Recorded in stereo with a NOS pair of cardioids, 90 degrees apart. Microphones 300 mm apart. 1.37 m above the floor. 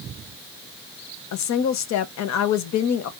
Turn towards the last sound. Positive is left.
turn(degrees=65)